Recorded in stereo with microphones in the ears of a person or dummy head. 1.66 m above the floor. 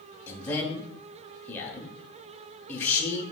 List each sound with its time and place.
0.3 s a man speaking: 20° left (ahead or behind), 0.9 m